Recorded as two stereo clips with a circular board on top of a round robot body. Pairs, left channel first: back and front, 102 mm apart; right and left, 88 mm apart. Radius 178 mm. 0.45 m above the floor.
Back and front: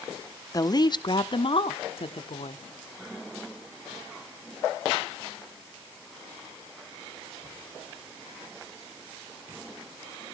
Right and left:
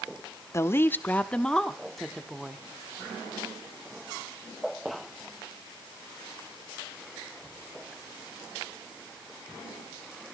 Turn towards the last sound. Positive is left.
turn(degrees=170)